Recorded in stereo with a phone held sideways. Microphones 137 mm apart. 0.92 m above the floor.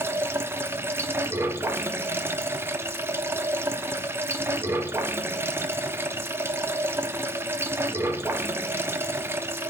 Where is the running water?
15° right (ahead or behind), 0.8 m.